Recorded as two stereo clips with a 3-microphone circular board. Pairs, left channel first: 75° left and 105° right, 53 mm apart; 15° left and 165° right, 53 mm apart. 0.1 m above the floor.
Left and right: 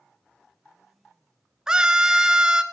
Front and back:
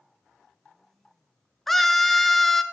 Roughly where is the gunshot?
I don't hear a gunshot.